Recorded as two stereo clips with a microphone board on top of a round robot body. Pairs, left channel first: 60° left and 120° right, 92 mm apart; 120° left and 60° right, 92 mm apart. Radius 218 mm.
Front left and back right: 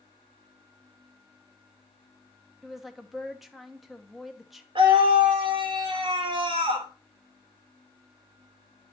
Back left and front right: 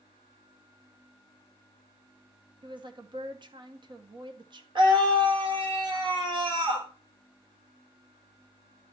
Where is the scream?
90° right, 3 m.